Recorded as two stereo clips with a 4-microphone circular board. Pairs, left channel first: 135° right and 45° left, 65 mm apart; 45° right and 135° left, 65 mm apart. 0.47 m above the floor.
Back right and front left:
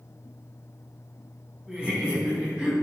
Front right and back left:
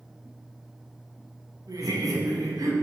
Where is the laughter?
120° left, 4.5 m.